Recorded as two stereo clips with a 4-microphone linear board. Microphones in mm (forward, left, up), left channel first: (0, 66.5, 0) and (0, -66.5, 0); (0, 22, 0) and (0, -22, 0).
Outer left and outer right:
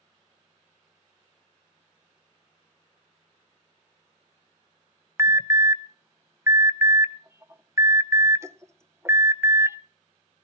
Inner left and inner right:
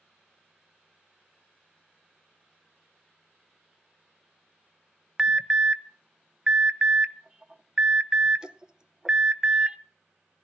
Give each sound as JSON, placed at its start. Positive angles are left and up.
{"t": 5.2, "sound": "an alarm", "side_deg": -20, "distance_m": 0.7}